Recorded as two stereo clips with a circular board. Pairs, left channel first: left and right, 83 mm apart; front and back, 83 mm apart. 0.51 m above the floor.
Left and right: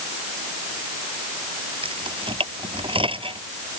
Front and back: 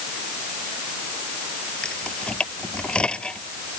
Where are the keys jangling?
80° right.